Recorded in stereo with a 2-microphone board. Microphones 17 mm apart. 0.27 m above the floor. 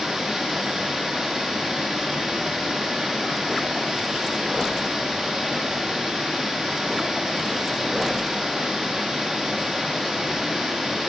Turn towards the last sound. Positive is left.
turn(degrees=-60)  # may be behind; listen again after turning